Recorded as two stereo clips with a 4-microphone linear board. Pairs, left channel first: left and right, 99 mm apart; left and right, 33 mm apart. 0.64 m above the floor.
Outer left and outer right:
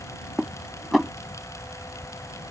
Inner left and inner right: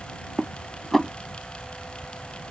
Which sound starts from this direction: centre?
Dishes clattering, at 0.4 s.